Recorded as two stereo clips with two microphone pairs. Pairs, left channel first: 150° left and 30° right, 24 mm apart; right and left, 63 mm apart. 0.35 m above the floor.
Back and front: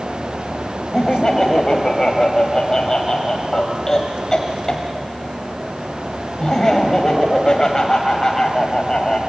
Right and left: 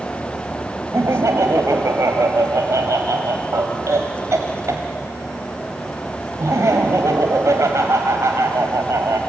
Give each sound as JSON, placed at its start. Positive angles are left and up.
{"t": 0.9, "sound": "laughter", "azimuth_deg": 95, "distance_m": 1.7}